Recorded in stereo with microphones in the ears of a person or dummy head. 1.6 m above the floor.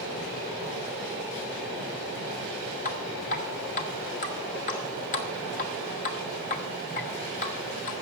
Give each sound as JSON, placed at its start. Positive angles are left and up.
{"t": 2.9, "sound": "dripping", "side_deg": 40, "distance_m": 1.2}